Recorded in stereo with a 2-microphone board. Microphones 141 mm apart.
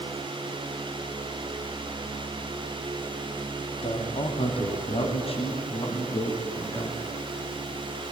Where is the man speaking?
50° left (ahead or behind), 2.5 m; by 7.0 s 40° left (ahead or behind), 2.5 m.